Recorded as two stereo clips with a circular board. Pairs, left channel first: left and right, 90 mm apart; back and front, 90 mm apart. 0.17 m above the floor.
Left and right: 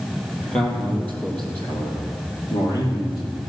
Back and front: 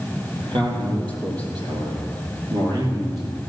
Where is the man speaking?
10° left, 4 m; by 3.4 s 50° left, 4.5 m.